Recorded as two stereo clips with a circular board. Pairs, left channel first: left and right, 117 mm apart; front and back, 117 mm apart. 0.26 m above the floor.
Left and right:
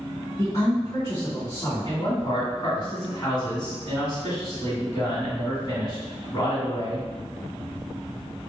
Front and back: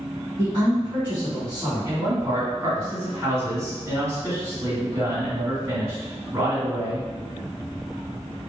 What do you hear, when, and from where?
0.4 s a woman speaking: 120° left, 1.7 m
1.9 s a man speaking: 130° left, 1.9 m